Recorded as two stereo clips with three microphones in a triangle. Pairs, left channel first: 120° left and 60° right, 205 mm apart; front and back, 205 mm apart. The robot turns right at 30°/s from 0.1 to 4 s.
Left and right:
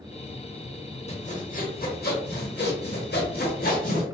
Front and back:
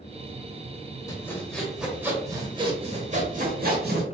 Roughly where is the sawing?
Left.